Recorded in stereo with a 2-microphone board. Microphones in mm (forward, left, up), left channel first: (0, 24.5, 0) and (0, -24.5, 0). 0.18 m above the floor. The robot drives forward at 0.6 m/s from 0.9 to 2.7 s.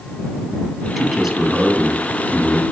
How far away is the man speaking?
About 1.5 m.